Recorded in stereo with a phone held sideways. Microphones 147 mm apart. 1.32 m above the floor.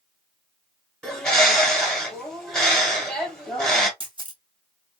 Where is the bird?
5° left (ahead or behind), 1.3 m.